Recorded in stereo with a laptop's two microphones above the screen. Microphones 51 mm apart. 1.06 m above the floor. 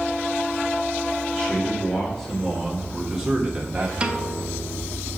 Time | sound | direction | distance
1.3 | a man speaking | 15° left (ahead or behind) | 1.9 m
4.0 | a piano | 20° right (ahead or behind) | 0.6 m